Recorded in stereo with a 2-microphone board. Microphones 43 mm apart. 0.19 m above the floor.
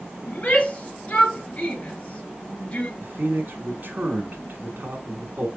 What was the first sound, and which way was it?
A shout, 30° left (ahead or behind).